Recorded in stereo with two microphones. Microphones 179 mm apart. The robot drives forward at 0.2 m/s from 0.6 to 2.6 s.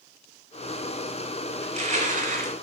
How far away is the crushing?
About 0.6 m.